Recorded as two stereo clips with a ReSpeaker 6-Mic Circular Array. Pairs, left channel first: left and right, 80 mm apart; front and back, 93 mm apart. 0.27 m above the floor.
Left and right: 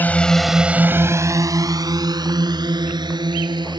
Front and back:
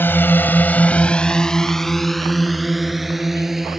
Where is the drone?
45° left; by 3.8 s 90° right.